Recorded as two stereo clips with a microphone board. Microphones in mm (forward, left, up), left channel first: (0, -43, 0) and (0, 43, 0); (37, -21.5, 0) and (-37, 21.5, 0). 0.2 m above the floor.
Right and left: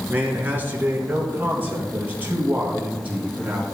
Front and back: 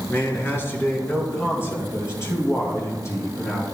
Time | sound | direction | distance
0.1 | a man speaking | 30° left | 2.5 m